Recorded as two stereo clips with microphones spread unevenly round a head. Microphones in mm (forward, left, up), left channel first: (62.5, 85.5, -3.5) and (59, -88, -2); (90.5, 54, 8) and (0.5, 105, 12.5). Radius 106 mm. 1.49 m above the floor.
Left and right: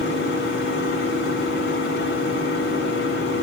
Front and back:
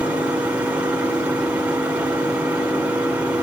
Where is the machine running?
75° left, 5 m.